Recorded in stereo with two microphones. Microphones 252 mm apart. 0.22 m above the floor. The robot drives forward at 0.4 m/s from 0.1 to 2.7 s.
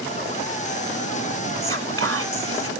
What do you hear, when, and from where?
1.6 s whispering: 60° right (ahead or behind), 2 m